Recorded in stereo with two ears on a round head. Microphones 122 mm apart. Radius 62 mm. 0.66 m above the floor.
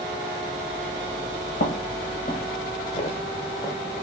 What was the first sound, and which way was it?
Footsteps, 75° left (ahead or behind).